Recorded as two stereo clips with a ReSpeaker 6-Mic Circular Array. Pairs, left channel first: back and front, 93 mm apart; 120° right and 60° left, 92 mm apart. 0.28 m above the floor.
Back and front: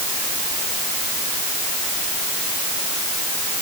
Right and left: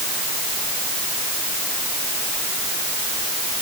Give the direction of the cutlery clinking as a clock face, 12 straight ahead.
I don't hear cutlery clinking.